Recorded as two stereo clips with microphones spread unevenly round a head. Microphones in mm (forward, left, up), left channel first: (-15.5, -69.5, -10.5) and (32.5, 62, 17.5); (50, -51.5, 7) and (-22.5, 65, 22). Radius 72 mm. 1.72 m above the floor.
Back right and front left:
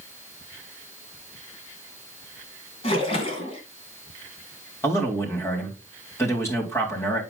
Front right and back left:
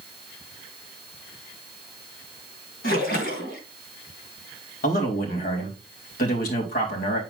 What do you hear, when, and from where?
2.8 s a splash: 60° right, 2.5 m
4.8 s a man speaking: 35° right, 3.5 m